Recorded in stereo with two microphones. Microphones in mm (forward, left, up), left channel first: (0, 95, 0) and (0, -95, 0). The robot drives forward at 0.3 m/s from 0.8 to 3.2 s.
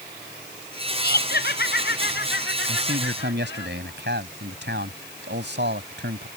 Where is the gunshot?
No gunshot in this recording.